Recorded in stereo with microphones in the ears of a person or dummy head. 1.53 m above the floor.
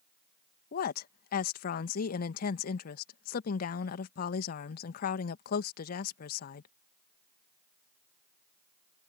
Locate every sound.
0.7 s a woman speaking: 55° left (ahead or behind)